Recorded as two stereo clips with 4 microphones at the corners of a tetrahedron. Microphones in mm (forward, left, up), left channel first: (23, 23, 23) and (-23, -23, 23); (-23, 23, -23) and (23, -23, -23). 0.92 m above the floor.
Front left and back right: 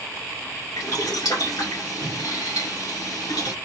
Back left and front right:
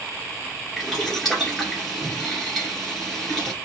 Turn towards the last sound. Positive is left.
turn(degrees=55)